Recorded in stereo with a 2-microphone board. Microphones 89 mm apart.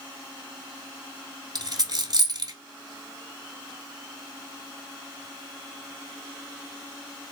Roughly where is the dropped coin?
Right.